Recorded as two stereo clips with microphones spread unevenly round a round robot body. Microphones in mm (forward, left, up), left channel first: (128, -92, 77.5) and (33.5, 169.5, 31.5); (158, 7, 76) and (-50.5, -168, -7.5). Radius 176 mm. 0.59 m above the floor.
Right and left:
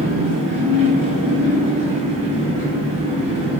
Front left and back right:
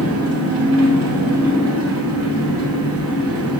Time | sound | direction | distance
0.0 | an engine running | 140° right | 1.8 m